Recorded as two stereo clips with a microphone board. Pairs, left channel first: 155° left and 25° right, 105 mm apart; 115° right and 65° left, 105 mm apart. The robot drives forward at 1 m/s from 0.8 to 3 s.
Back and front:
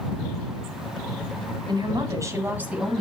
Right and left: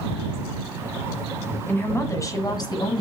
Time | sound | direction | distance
1.7 | a woman speaking | 45° right | 1.8 m